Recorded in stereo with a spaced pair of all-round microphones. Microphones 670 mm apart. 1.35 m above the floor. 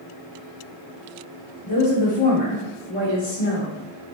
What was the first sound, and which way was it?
A woman speaking, 40° left (ahead or behind).